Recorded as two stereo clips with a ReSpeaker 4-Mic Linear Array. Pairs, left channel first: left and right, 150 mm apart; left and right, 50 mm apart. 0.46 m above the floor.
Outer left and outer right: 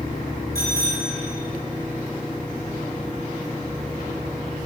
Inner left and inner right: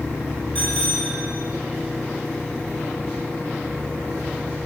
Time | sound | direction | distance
0.6 | a bicycle bell | 25° left (ahead or behind) | 4.5 m